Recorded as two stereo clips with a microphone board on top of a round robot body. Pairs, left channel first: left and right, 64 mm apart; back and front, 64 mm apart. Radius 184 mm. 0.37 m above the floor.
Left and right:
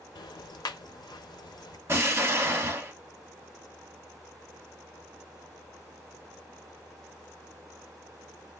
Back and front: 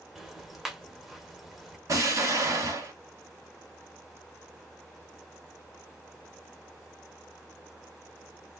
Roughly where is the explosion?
Ahead right.